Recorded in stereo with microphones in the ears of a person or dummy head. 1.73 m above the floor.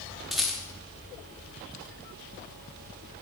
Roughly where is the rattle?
Centre.